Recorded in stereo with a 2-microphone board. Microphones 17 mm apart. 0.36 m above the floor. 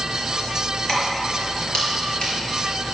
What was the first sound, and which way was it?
Keys jangling, 45° left (ahead or behind).